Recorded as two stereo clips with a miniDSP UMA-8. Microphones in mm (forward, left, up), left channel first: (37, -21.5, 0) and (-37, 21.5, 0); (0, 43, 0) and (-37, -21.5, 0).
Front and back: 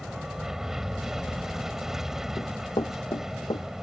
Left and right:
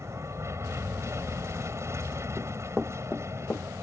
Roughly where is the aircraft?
Behind right.